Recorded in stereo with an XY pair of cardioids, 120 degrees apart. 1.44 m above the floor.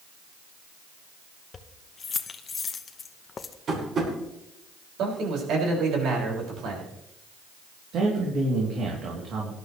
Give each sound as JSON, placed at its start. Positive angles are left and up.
{"t": 1.5, "sound": "keys jangling", "azimuth_deg": 30, "distance_m": 1.0}
{"t": 3.7, "sound": "tapping", "azimuth_deg": -45, "distance_m": 6.0}
{"t": 5.0, "sound": "a man speaking", "azimuth_deg": -70, "distance_m": 6.0}
{"t": 7.9, "sound": "a man speaking", "azimuth_deg": -65, "distance_m": 3.5}